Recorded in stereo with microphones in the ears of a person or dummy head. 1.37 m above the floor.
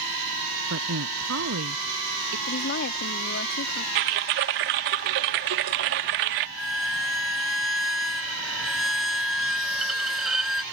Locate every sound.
0.7 s a woman speaking: 75° right (ahead or behind)
2.5 s a woman speaking: 60° left (ahead or behind)
4.0 s typing on a keyboard: 40° right (ahead or behind)
6.6 s a violin: centre (ahead or behind)